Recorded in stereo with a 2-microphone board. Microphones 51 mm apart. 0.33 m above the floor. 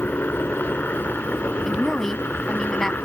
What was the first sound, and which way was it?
A helicopter, 40° left (ahead or behind).